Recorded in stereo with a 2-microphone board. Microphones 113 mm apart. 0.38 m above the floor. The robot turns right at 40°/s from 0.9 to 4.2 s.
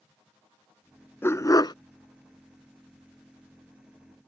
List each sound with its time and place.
1.2 s a dog barking: 20° left (ahead or behind); by 1.8 s 40° left (ahead or behind)